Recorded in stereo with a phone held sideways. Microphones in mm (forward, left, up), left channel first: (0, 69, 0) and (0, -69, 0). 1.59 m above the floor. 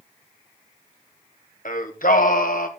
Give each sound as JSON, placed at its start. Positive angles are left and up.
{"t": 1.6, "sound": "singing", "side_deg": 75, "distance_m": 1.5}